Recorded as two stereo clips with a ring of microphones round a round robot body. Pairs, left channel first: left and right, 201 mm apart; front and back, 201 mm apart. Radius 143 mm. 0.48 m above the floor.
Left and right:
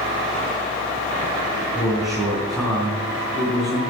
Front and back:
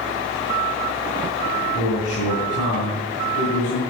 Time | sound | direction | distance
1.8 | a man speaking | straight ahead | 5 m